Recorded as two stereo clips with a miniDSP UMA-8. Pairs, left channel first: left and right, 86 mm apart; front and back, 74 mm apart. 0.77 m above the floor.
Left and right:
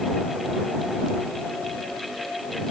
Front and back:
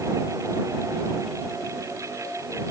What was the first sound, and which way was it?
Only background noise.